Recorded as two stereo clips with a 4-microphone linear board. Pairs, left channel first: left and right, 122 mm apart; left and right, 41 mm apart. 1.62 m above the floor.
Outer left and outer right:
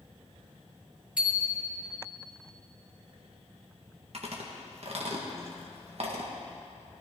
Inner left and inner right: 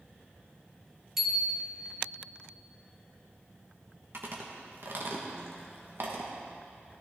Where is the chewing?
55° right (ahead or behind), 1.7 m.